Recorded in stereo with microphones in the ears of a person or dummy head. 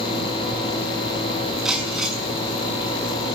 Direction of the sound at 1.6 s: 5° right (ahead or behind).